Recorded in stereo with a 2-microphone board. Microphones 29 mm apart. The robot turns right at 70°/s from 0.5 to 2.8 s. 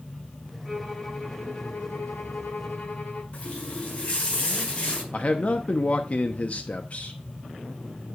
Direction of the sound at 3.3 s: 50° left (ahead or behind).